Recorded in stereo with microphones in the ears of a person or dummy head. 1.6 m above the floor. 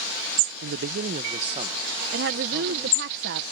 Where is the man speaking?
65° right (ahead or behind); by 3.1 s 10° right (ahead or behind).